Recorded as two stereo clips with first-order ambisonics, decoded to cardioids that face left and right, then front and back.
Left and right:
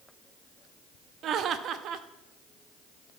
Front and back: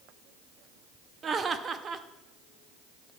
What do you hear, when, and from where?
1.2 s laughter: 125° right, 0.6 m